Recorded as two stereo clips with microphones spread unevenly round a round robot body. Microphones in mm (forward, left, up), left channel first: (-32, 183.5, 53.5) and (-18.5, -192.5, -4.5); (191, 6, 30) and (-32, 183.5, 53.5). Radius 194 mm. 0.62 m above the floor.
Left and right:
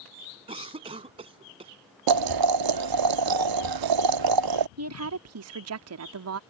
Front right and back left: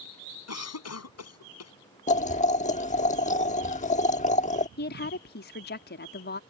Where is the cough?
10° right.